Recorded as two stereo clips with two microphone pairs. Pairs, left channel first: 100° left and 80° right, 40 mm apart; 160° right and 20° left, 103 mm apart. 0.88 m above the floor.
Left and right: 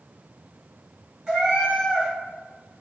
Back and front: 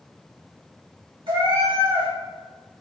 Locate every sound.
1.3 s a cat meowing: 10° right, 1.9 m